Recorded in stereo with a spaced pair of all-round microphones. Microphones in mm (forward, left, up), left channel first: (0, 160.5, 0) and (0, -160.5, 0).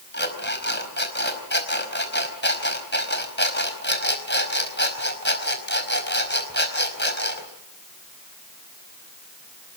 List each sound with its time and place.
0.1 s an alarm clock: 35° left (ahead or behind), 4.5 m